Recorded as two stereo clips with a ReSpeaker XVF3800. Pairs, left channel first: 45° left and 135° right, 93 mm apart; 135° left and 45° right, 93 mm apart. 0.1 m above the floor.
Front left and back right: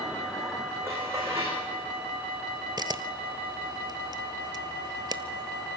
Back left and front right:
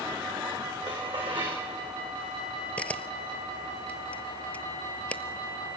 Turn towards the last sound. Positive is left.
turn(degrees=-150)